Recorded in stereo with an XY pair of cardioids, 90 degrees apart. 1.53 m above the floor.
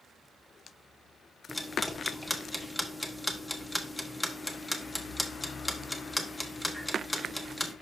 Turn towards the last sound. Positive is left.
turn(degrees=10)